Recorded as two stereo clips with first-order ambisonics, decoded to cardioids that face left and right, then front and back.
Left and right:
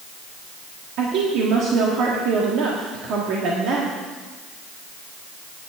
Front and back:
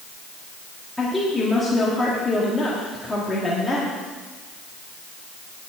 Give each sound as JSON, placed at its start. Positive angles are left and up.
{"t": 1.0, "sound": "a woman speaking", "azimuth_deg": -85, "distance_m": 1.6}